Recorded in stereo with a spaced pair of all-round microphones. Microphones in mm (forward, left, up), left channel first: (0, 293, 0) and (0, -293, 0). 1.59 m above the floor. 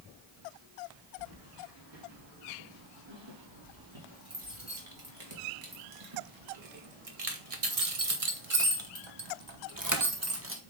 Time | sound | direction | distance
1.2 | keys jangling | 45° right (ahead or behind) | 4 m